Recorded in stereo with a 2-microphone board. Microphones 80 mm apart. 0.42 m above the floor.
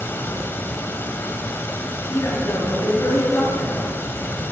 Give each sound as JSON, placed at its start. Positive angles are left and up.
{"t": 0.0, "sound": "running water", "side_deg": 30, "distance_m": 1.0}
{"t": 2.1, "sound": "a man speaking", "side_deg": 40, "distance_m": 6.5}